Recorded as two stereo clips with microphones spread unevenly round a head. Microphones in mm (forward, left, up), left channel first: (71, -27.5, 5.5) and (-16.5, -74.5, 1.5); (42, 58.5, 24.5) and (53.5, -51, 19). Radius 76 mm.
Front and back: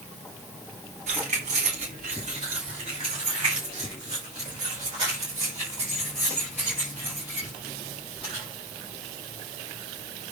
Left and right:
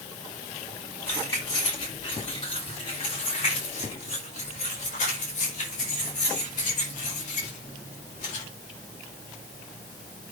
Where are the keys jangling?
170° left, 3 m; by 8.4 s 125° left, 7 m.